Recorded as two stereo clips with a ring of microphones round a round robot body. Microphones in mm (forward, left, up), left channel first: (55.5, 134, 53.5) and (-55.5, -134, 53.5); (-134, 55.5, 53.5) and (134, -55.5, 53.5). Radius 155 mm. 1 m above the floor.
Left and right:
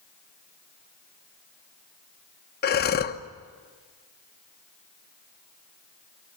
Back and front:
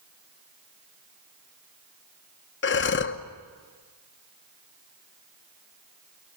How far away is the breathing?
About 1.1 m.